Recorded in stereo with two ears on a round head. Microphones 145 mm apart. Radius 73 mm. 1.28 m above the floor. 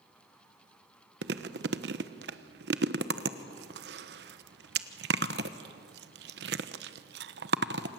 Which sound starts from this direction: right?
Chewing, at 1.2 s.